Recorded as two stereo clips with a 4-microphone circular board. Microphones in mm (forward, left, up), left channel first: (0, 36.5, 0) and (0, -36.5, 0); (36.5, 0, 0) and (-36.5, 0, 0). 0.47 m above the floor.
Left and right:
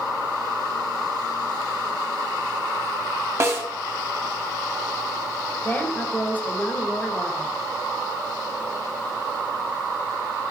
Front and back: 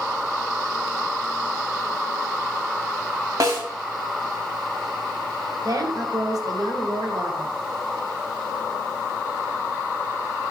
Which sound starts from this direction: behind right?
A snare drum, at 3.4 s.